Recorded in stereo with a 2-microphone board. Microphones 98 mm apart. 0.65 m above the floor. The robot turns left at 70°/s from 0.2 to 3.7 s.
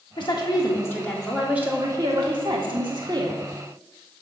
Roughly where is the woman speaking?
Left.